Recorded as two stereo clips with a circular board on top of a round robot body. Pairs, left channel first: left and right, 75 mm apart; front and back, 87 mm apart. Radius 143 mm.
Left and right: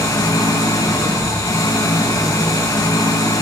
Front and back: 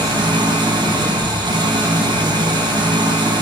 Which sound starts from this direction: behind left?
An engine running, at 0.0 s.